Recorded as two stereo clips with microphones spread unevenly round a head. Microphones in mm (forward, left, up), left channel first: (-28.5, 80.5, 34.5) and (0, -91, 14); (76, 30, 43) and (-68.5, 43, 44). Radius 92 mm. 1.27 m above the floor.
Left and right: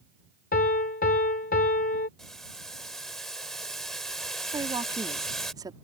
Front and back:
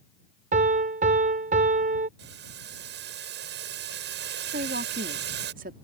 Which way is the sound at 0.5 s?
140° left.